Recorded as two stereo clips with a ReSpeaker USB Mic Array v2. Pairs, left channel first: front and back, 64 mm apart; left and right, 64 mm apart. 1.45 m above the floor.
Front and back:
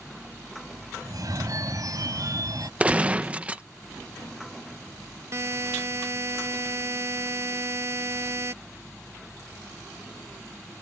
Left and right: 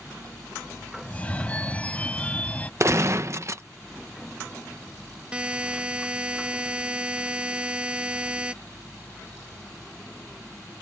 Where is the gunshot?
115° right.